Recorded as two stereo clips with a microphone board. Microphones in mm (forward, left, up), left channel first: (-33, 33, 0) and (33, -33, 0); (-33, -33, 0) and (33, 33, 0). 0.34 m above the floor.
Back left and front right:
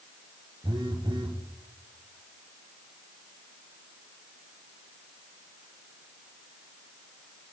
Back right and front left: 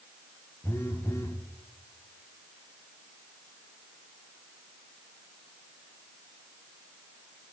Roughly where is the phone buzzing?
Right.